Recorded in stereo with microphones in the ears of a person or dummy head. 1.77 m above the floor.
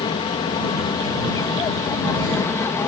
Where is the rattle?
I don't hear a rattle.